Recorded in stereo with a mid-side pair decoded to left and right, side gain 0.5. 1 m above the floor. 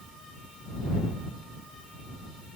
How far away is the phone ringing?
No phone ringing in this recording.